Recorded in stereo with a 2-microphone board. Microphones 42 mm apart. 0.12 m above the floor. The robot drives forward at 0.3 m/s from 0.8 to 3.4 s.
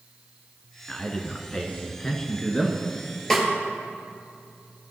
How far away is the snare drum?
About 1.9 m.